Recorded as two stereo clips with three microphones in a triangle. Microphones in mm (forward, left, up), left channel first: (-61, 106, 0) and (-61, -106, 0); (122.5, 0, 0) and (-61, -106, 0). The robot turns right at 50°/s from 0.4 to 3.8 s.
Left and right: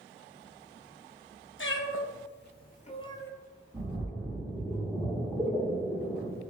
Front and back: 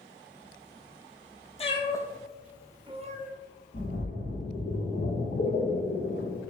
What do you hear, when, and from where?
1.6 s a cat meowing: 85° left, 0.5 m; by 3.3 s 170° left, 0.5 m
3.7 s a splash: 10° right, 1.8 m